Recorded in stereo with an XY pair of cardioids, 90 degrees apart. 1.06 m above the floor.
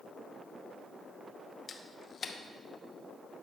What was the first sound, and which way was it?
A camera shutter, 45° left.